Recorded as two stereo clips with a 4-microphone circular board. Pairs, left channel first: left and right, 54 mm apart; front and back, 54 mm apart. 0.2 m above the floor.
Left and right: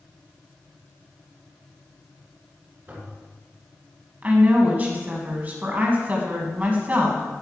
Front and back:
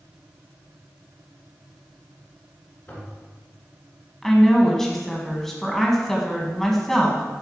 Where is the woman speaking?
75° right, 1.8 m.